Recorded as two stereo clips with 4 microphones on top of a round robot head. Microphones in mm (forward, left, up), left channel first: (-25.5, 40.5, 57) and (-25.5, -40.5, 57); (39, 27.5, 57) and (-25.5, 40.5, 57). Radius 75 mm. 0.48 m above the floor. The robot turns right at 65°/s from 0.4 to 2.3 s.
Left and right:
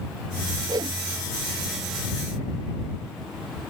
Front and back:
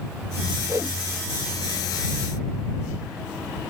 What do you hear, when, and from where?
0.7 s a whoosh: 140° right; by 1.0 s 120° right